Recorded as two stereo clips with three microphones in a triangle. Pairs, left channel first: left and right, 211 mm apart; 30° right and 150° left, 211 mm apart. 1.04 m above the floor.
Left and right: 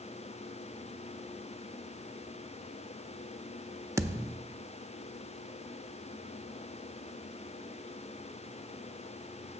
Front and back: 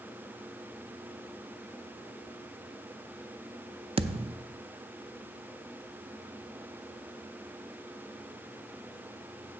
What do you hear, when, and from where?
4.0 s a thud: 160° right, 0.5 m